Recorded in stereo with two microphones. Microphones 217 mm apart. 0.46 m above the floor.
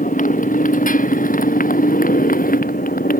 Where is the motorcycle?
40° left (ahead or behind).